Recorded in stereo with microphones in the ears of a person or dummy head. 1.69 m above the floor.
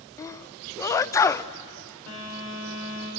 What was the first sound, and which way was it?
A sneeze, 15° left (ahead or behind).